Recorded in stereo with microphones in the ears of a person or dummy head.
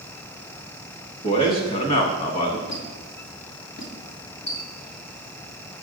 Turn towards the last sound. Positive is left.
turn(degrees=60)  # may be behind; listen again after turning